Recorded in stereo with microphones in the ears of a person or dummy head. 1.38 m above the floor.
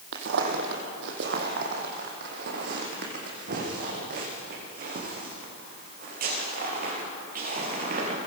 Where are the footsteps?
65° right (ahead or behind), 3 m; by 8.2 s 45° right (ahead or behind), 7.5 m.